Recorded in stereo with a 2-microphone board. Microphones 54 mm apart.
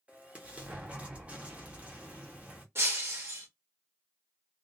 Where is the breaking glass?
55° right (ahead or behind), 1.2 m.